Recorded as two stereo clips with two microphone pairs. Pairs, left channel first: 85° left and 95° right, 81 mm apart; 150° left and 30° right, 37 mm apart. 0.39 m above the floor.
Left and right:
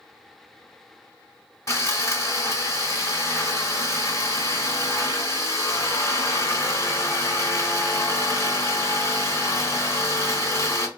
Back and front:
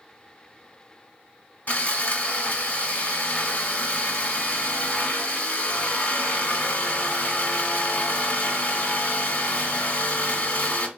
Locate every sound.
1.7 s sawing: 120° left, 1.0 m